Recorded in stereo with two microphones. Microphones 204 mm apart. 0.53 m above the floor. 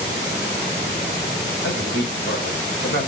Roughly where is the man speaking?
Left.